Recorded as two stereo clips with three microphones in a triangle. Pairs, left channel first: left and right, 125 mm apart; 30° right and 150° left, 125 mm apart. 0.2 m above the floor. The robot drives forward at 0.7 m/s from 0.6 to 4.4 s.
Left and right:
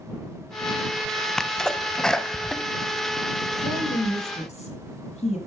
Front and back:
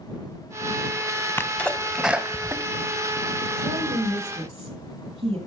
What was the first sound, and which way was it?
A sneeze, 10° left.